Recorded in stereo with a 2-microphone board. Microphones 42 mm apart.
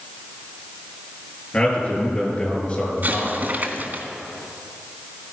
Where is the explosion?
45° right (ahead or behind), 1.6 m.